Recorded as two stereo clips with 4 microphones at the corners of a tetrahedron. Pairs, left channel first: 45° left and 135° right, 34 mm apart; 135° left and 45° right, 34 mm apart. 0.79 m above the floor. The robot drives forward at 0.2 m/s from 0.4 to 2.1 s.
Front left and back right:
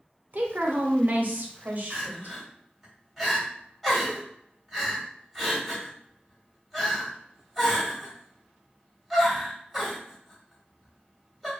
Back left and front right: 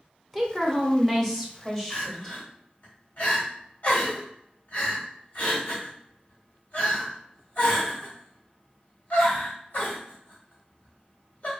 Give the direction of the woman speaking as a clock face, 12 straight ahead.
5 o'clock.